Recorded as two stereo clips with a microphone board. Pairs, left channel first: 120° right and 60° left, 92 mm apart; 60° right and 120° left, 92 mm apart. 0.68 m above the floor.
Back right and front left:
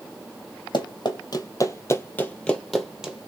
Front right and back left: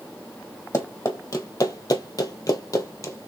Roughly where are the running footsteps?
Right.